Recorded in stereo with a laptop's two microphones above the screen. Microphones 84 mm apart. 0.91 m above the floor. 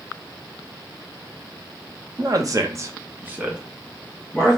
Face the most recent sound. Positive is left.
turn(degrees=10)  # may be behind; listen again after turning